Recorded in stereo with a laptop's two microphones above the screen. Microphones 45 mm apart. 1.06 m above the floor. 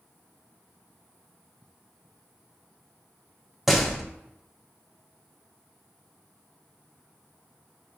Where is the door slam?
5° right (ahead or behind), 0.7 m.